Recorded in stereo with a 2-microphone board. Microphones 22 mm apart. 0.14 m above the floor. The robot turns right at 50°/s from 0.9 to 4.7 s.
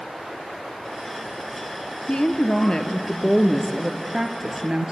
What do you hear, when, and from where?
2.1 s a woman speaking: 100° left, 2 m; by 4.9 s 130° right, 2 m